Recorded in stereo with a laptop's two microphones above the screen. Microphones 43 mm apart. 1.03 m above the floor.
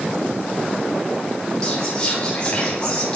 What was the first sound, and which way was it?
Whispering, 20° left (ahead or behind).